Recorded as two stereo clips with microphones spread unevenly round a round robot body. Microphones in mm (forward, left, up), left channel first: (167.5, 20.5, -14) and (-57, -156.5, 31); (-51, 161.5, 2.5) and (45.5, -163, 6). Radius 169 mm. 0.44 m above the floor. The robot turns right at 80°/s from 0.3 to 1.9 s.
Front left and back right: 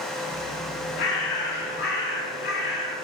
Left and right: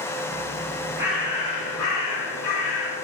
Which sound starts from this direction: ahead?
A bird, at 1.0 s.